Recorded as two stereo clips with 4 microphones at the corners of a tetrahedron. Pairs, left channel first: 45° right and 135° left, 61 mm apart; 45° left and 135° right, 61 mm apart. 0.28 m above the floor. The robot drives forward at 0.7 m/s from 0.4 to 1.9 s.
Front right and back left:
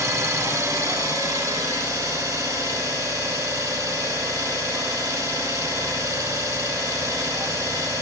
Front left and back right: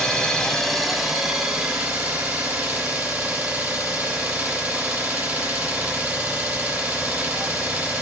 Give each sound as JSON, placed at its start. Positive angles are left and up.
{"t": 0.0, "sound": "an engine running", "azimuth_deg": 120, "distance_m": 0.9}